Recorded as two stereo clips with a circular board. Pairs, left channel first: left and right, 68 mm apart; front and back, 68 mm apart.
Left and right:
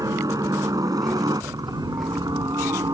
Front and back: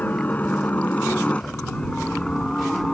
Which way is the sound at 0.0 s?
65° right.